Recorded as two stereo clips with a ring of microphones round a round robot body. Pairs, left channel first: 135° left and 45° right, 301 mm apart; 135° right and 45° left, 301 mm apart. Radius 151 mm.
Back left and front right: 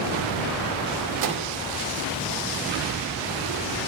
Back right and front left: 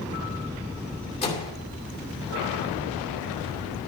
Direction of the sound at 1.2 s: 65° right.